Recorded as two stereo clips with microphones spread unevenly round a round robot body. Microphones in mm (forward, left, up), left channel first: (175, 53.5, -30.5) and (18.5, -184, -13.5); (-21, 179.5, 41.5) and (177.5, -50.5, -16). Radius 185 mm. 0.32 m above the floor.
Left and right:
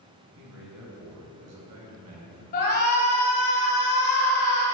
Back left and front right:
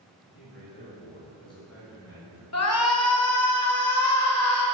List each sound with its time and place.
0.3 s a man speaking: 170° right, 2.5 m; by 2.4 s 135° right, 3.5 m
2.5 s a shout: 100° left, 1.2 m